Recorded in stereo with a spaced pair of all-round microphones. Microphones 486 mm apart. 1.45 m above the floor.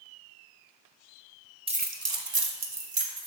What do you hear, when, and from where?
1.7 s keys jangling: 10° right (ahead or behind), 0.5 m; by 3.3 s 70° right (ahead or behind), 0.9 m